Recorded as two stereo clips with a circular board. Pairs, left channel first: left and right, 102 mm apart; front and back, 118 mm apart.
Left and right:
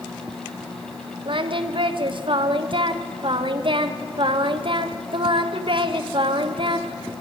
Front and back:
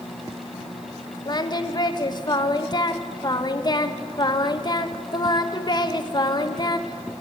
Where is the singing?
55° right, 1.0 m.